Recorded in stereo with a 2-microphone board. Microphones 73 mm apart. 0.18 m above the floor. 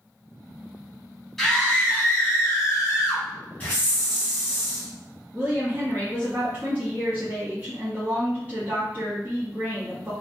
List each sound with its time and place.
1.4 s a scream: 5° left (ahead or behind), 1.0 m; by 3.3 s 50° left (ahead or behind), 1.5 m
3.6 s a hiss: 25° left (ahead or behind), 1.6 m
5.3 s a woman speaking: 25° right (ahead or behind), 1.3 m